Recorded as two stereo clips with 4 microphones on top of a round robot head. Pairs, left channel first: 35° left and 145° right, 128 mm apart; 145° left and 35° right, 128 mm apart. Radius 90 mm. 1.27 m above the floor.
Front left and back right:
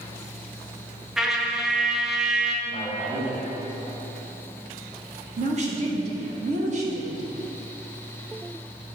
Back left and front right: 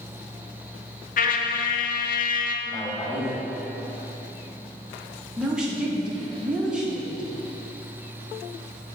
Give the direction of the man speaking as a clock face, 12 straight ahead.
4 o'clock.